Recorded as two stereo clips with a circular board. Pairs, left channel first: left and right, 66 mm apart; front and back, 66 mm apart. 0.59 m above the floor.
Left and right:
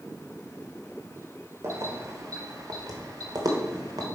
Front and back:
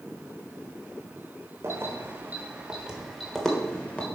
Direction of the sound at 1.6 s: 135° right.